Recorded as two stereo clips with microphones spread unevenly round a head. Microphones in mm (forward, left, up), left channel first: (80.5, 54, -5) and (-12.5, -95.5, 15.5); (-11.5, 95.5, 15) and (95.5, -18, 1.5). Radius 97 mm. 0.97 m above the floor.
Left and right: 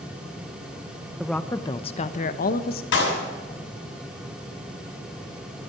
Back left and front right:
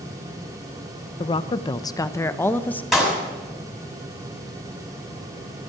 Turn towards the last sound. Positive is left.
turn(degrees=40)